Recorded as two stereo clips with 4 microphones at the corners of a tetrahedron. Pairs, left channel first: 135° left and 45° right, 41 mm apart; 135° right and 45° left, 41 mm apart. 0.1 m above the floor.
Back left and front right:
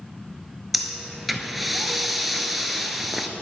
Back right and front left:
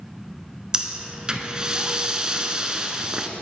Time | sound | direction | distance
0.7 | breathing | 35° left | 0.7 m